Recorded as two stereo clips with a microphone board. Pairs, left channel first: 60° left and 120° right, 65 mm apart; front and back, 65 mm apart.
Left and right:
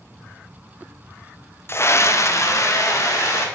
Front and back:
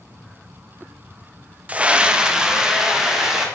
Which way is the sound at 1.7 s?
110° left.